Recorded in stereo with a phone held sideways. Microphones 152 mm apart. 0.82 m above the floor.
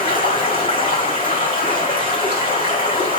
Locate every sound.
0.0 s running water: 70° left (ahead or behind), 2 m